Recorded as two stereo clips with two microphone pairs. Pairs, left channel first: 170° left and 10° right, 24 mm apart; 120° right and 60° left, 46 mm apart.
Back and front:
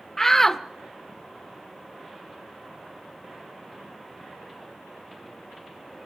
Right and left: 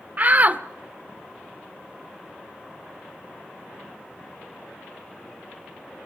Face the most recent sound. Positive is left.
turn(degrees=95)